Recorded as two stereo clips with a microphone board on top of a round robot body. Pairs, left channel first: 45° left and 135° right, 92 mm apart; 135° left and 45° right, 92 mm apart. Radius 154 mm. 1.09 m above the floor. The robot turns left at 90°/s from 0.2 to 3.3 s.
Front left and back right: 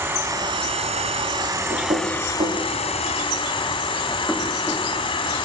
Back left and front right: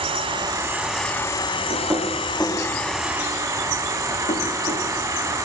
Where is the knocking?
85° right, 3 m; by 4.8 s 130° left, 3 m.